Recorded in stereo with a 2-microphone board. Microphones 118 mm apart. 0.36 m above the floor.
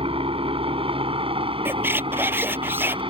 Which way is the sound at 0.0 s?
50° right (ahead or behind).